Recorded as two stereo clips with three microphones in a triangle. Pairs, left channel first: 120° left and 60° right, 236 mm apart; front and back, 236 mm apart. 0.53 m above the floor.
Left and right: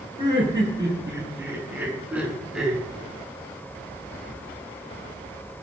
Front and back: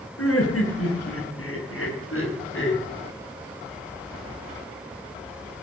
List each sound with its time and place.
0.2 s laughter: 10° left, 8.5 m; by 2.8 s 30° left, 7 m